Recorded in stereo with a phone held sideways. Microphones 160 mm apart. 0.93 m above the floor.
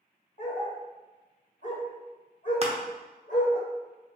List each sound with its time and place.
0.4 s a dog barking: 55° left (ahead or behind), 1.1 m
2.6 s crushing: 40° right (ahead or behind), 0.7 m